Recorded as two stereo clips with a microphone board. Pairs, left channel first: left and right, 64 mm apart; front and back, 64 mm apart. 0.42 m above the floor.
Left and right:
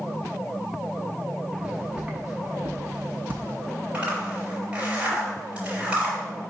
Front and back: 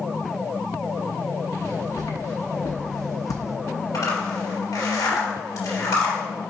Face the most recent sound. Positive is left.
turn(degrees=-20)